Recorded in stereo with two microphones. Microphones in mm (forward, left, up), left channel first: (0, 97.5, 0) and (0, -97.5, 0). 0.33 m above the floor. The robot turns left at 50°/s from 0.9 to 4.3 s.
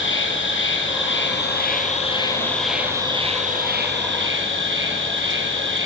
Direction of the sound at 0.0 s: 90° left.